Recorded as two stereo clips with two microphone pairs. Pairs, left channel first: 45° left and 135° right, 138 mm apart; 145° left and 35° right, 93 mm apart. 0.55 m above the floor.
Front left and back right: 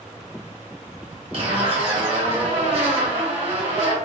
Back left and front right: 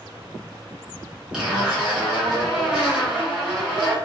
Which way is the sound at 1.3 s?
110° right.